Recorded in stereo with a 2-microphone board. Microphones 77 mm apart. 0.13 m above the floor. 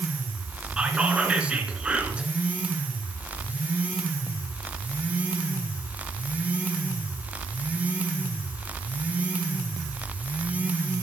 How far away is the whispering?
About 1.6 m.